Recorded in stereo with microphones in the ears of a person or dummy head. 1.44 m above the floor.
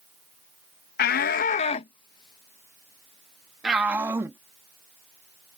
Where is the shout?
65° left (ahead or behind); by 4.4 s 10° right (ahead or behind).